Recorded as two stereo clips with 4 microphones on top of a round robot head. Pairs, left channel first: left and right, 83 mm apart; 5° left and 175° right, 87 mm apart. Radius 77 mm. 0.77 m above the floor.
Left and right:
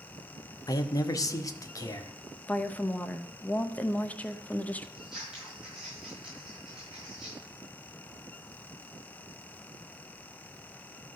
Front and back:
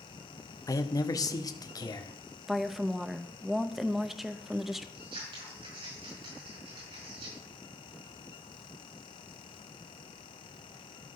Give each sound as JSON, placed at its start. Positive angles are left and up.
{"t": 0.7, "sound": "a man speaking", "azimuth_deg": 50, "distance_m": 0.9}
{"t": 2.5, "sound": "a woman speaking", "azimuth_deg": 105, "distance_m": 0.8}
{"t": 5.0, "sound": "scissors", "azimuth_deg": -175, "distance_m": 5.0}